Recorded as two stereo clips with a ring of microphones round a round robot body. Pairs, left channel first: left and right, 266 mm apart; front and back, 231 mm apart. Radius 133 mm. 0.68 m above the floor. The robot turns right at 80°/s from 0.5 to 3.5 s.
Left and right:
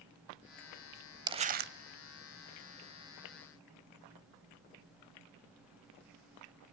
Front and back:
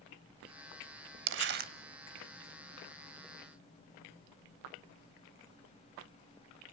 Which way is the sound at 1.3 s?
165° right.